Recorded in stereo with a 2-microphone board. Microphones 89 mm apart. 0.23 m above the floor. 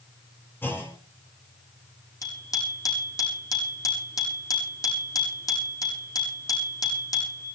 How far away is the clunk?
About 4 m.